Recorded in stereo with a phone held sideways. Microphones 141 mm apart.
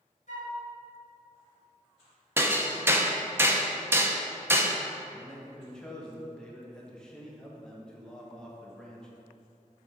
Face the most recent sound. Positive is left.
turn(degrees=5)  # may be behind; listen again after turning